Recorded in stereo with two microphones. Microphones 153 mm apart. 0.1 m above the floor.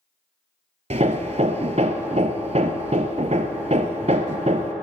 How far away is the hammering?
About 0.5 m.